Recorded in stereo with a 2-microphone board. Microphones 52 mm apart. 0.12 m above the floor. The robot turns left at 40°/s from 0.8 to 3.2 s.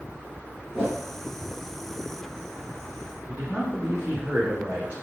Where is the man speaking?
30° right (ahead or behind), 2 m.